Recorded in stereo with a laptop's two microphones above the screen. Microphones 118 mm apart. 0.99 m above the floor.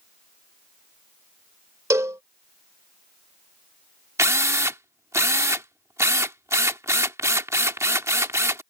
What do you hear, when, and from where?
1.9 s a cowbell: 25° right (ahead or behind)
4.2 s a drill: 25° right (ahead or behind)